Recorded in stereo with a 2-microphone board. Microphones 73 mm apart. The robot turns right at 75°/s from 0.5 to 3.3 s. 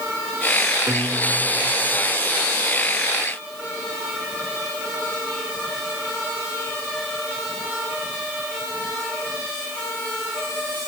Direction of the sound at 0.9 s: 55° right.